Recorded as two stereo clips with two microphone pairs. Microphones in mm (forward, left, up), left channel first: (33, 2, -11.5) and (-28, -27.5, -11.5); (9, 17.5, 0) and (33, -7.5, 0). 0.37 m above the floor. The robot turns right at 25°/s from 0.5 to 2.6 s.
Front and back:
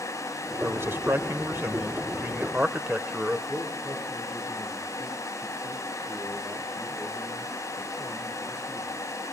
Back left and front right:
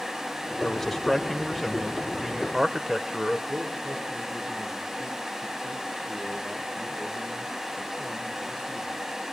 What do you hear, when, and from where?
0.6 s a man speaking: 155° right, 1.2 m; by 3.4 s 105° right, 1.2 m
3.5 s a man speaking: 55° right, 7 m